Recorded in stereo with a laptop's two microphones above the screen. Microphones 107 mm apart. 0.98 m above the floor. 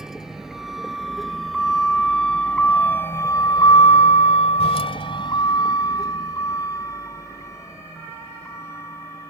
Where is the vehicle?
5° right (ahead or behind); by 9.3 s 25° left (ahead or behind).